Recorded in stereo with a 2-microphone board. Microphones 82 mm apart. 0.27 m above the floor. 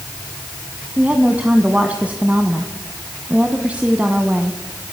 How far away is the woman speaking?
About 1.8 m.